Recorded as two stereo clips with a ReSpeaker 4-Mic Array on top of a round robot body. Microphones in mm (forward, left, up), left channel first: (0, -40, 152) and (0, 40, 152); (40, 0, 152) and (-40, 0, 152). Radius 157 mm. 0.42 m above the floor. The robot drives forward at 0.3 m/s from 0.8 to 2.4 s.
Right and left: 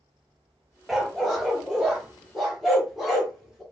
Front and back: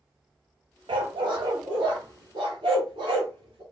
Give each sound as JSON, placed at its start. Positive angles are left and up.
{"t": 0.9, "sound": "a dog barking", "azimuth_deg": 175, "distance_m": 0.5}